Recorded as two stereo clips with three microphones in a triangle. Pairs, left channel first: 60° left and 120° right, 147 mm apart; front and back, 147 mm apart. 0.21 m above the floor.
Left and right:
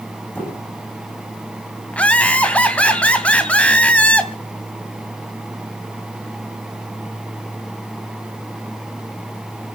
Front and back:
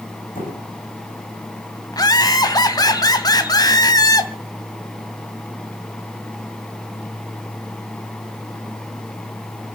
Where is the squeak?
20° right, 8 m.